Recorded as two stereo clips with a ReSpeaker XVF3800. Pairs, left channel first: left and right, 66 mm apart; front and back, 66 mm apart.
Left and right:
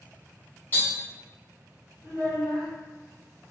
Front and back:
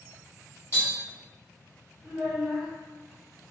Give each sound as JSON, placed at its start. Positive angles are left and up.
{"t": 0.7, "sound": "tapping", "azimuth_deg": 35, "distance_m": 1.3}
{"t": 2.0, "sound": "a child speaking", "azimuth_deg": 100, "distance_m": 1.6}